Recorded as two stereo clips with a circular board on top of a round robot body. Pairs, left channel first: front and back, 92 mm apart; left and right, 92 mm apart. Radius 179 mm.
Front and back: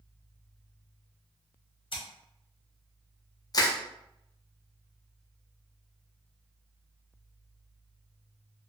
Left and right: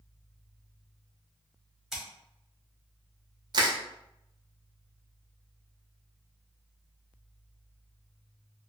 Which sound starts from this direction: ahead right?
Crushing, at 3.5 s.